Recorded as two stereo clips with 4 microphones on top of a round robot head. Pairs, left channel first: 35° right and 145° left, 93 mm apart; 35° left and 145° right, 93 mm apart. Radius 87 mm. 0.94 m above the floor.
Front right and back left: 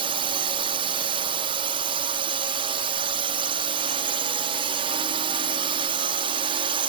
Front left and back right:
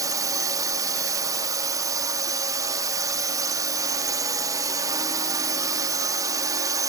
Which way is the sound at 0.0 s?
165° left.